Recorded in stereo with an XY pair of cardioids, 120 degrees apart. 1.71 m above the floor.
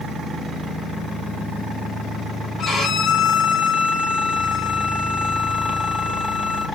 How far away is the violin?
About 1.4 m.